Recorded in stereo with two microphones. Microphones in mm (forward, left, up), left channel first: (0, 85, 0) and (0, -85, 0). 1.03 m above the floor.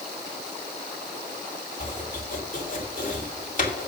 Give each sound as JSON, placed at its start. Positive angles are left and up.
{"t": 1.8, "sound": "chopping", "side_deg": 45, "distance_m": 2.5}